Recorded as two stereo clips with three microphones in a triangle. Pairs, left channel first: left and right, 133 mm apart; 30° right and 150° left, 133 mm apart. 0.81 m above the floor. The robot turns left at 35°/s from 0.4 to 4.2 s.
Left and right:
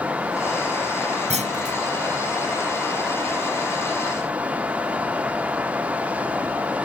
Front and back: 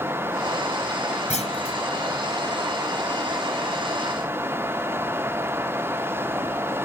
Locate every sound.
1.3 s a clunk: 60° right; by 1.8 s 75° right